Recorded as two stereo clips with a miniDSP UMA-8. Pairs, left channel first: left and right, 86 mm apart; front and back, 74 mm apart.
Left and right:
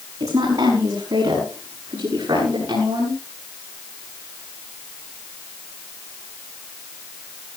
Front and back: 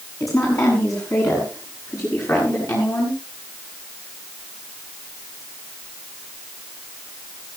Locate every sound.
0.2 s a woman speaking: 45° right, 6.5 m; by 3.2 s 50° right, 9 m